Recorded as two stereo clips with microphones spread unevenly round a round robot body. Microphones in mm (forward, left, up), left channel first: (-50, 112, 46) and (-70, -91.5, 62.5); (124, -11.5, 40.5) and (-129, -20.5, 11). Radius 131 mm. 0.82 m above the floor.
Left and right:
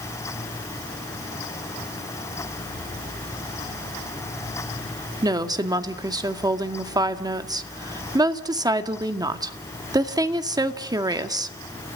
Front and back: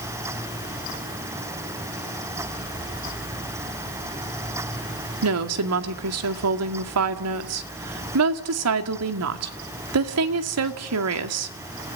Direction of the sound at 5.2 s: 170° right.